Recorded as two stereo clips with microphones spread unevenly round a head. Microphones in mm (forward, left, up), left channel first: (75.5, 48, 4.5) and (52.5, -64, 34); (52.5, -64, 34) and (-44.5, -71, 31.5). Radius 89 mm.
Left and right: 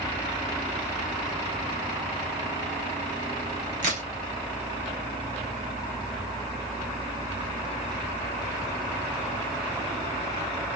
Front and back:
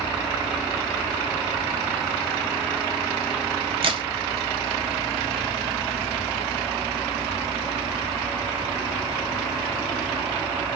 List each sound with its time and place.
3.8 s a crack: 145° right, 0.9 m